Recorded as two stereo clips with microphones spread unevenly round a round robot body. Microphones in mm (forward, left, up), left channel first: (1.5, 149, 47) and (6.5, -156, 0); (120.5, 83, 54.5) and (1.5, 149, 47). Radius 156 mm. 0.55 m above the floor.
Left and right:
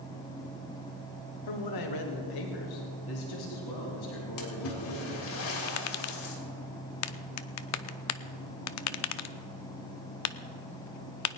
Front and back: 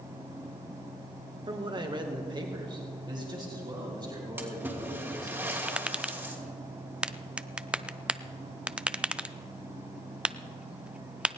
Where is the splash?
80° left, 3 m.